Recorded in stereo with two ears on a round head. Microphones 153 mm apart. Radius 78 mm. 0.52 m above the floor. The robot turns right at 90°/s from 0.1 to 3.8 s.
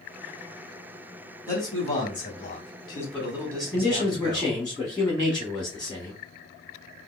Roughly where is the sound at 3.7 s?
Centre.